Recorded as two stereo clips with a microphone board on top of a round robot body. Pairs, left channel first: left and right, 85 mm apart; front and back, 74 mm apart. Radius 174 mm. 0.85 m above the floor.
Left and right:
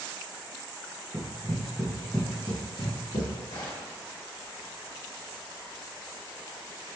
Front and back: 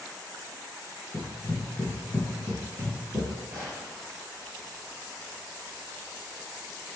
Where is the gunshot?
115° left, 1.0 m.